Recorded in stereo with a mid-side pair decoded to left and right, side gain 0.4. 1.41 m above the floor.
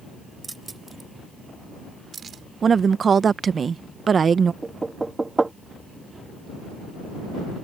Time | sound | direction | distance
0.4 | keys jangling | 20° right | ?
2.6 | a woman speaking | 50° right | ?
4.6 | knocking | 25° right | ?